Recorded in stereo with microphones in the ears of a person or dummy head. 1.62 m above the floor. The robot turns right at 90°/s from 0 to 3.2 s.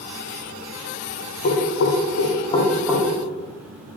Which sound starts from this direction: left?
Knocking, at 1.4 s.